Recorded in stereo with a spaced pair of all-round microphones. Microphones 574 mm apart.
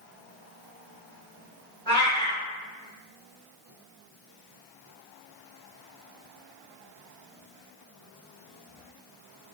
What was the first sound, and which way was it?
A cat meowing, 10° left (ahead or behind).